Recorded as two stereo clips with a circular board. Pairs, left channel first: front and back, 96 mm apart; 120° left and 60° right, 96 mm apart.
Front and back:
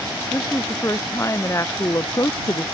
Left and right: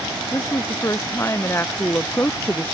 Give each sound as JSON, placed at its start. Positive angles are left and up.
{"t": 0.3, "sound": "a woman speaking", "azimuth_deg": 60}